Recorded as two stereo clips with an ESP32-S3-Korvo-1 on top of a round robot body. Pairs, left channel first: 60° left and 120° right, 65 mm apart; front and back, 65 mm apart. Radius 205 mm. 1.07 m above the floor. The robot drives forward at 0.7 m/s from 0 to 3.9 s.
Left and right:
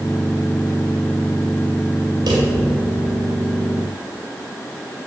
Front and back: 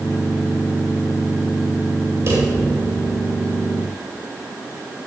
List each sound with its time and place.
2.3 s a drawer: 130° right, 1.9 m; by 2.5 s 135° right, 2 m